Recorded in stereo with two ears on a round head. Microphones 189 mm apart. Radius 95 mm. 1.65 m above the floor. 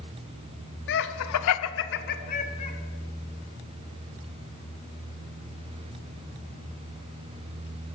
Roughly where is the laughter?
Left.